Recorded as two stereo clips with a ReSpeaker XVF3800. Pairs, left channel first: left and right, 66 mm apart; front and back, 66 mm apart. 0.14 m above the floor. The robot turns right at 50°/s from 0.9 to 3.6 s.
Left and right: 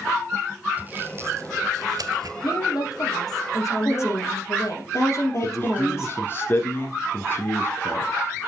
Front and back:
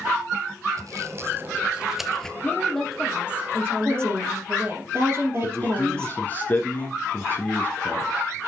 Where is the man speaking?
50° left, 1.7 m.